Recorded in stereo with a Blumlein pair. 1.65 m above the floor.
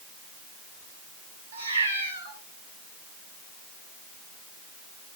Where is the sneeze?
No sneeze in this recording.